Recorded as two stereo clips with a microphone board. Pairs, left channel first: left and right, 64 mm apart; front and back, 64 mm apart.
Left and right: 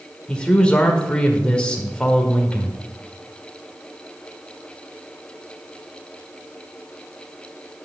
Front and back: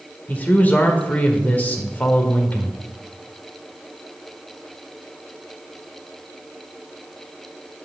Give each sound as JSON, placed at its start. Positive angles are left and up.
{"t": 0.3, "sound": "a man speaking", "azimuth_deg": 30, "distance_m": 1.6}